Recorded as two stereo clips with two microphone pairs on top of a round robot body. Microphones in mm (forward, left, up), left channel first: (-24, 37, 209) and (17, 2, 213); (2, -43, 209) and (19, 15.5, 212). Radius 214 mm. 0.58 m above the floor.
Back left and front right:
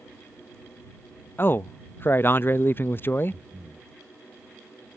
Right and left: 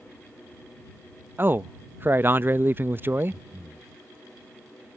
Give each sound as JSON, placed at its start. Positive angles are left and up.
{"t": 1.4, "sound": "a man speaking", "azimuth_deg": 120}
{"t": 3.3, "sound": "breathing", "azimuth_deg": 20}